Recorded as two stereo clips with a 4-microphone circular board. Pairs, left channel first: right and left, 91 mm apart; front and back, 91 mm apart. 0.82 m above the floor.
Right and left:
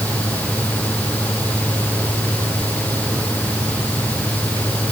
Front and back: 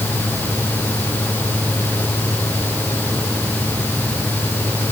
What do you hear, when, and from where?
Only background noise.